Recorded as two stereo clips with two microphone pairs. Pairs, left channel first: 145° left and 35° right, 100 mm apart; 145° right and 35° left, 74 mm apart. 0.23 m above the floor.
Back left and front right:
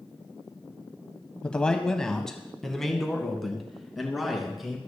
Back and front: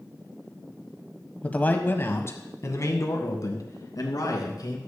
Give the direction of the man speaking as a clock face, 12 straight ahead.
5 o'clock.